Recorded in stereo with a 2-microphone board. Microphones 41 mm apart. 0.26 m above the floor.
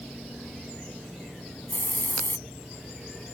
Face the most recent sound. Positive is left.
turn(degrees=55)  # may be behind; listen again after turning